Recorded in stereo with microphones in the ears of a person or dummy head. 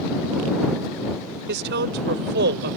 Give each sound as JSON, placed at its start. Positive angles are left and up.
{"t": 1.5, "sound": "a woman speaking", "side_deg": -60}